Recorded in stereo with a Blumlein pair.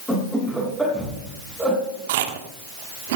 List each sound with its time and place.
0.1 s laughter: straight ahead, 6.5 m; by 1.8 s 15° right, 5.5 m
2.1 s chewing: 50° right, 1.3 m